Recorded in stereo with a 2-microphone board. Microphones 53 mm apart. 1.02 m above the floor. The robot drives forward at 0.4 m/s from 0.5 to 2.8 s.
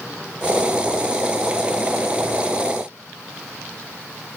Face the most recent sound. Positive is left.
No sound to turn to.